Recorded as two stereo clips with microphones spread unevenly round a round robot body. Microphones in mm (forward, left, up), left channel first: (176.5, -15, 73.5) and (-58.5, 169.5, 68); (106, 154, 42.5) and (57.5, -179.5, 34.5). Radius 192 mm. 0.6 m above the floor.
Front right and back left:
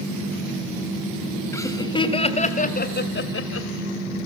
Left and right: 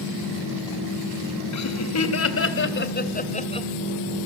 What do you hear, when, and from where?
1.5 s laughter: 45° left, 4 m; by 3.7 s 5° left, 3 m